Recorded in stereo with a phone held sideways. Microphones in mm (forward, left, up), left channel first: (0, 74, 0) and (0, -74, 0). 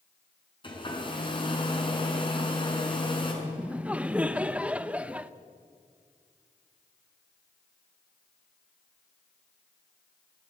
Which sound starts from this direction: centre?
Laughter, at 3.4 s.